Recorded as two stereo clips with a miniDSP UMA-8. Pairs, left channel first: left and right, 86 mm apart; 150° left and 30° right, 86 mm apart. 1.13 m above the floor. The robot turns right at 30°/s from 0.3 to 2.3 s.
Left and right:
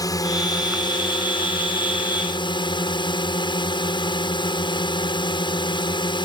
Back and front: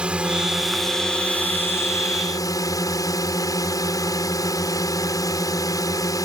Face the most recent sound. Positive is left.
turn(degrees=105)